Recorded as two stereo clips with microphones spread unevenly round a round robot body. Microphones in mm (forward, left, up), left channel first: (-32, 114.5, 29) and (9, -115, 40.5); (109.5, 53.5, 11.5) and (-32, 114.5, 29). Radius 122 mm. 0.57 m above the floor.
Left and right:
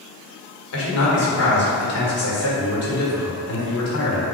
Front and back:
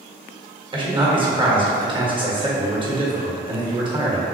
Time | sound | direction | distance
0.7 | a man speaking | 95° left | 1.5 m